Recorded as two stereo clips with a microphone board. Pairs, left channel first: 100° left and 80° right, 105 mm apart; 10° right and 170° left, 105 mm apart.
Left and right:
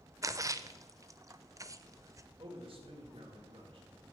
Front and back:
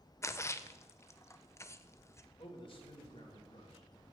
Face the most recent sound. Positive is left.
turn(degrees=-45)